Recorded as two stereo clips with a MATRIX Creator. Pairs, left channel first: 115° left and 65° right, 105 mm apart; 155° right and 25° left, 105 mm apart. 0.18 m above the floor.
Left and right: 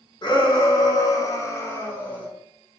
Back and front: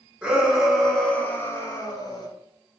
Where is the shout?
100° left, 1.5 m; by 2.3 s 175° right, 1.4 m.